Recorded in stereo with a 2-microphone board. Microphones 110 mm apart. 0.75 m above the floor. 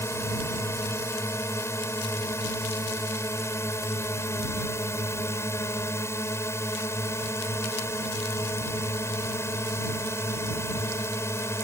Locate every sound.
0.0 s a drone: 25° left (ahead or behind)